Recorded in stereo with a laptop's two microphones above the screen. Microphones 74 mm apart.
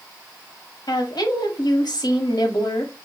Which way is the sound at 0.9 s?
65° left (ahead or behind).